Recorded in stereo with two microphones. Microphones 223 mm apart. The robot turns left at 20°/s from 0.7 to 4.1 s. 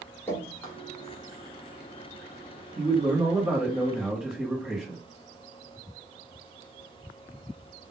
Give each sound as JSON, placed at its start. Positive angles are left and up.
{"t": 0.3, "sound": "dripping", "side_deg": 10, "distance_m": 1.1}
{"t": 2.8, "sound": "a man speaking", "side_deg": -25, "distance_m": 1.2}